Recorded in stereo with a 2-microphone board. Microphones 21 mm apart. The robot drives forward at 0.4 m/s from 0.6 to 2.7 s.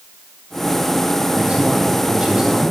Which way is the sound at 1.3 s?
45° right (ahead or behind).